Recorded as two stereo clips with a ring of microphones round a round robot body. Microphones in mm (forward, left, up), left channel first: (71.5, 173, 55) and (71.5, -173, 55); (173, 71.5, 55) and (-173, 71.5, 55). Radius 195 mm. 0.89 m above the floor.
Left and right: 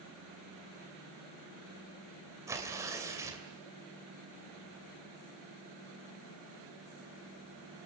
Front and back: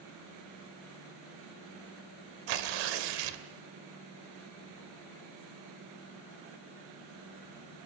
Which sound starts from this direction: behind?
Tearing paper, at 2.5 s.